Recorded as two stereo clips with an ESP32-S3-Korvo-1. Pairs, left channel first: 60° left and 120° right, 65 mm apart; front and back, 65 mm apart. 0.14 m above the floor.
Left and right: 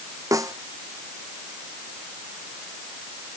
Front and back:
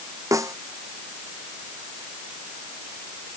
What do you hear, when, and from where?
0.3 s a snare drum: 150° right